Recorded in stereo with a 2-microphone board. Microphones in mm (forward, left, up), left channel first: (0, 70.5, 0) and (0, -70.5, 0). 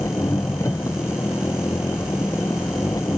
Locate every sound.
0.0 s an engine running: 20° left (ahead or behind)